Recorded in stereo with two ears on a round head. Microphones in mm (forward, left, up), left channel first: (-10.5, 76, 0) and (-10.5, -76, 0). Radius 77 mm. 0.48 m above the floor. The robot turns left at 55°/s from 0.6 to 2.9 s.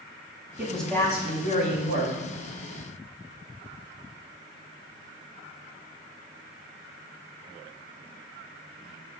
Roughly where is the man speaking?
Behind.